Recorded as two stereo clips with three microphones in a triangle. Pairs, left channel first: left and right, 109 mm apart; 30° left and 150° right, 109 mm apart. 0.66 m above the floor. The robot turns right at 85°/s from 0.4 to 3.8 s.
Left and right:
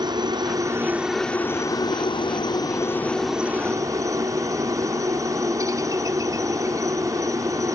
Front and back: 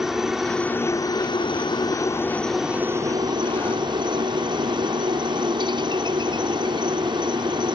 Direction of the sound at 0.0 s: 65° right.